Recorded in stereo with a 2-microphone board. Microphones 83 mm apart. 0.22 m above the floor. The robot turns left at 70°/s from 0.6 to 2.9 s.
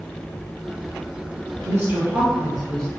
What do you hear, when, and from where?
1.6 s a woman speaking: 110° right, 1.7 m; by 2.9 s 165° left, 1.7 m